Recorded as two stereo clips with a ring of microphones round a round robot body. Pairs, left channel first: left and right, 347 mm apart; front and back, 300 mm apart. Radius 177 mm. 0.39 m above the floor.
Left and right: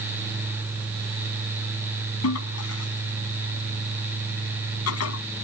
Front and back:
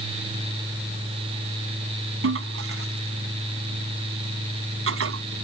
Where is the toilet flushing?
135° left.